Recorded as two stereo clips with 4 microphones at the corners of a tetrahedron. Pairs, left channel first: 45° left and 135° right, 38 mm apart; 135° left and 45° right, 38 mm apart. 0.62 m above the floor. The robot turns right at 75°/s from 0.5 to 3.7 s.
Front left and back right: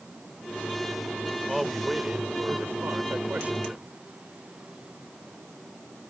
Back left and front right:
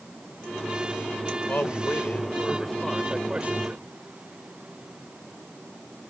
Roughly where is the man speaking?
Behind left.